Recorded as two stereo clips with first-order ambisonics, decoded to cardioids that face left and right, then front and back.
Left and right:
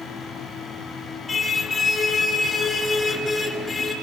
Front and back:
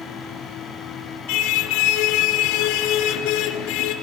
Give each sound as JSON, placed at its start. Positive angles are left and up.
{"t": 1.3, "sound": "a car horn", "azimuth_deg": 15, "distance_m": 3.5}